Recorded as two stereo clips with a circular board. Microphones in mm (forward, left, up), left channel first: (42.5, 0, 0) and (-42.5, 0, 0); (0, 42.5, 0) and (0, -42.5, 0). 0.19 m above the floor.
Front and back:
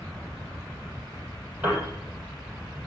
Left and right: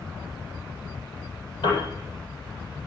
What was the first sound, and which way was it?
A piano, 110° left.